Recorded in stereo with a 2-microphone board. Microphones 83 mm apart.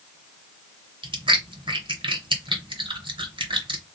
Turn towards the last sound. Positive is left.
turn(degrees=-85)